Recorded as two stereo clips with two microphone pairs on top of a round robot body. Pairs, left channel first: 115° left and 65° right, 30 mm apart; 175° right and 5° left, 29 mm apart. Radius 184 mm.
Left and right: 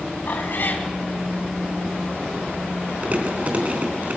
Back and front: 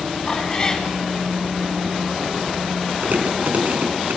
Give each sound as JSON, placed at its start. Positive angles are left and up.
{"t": 0.3, "sound": "a cat meowing", "azimuth_deg": 125, "distance_m": 3.5}
{"t": 3.0, "sound": "chewing", "azimuth_deg": -25, "distance_m": 4.0}